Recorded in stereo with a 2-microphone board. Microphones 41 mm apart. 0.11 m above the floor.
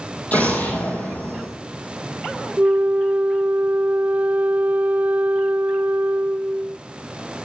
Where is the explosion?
35° left (ahead or behind), 3.5 m.